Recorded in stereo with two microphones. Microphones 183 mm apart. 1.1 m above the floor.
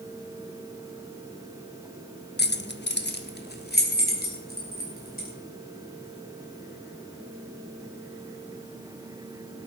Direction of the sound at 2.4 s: 65° left (ahead or behind).